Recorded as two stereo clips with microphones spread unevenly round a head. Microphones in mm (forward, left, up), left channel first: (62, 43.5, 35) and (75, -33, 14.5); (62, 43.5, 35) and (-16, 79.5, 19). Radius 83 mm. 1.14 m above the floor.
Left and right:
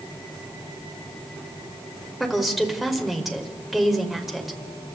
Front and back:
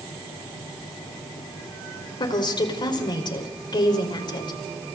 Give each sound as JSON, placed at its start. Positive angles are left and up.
{"t": 2.2, "sound": "a woman speaking", "azimuth_deg": 10, "distance_m": 4.5}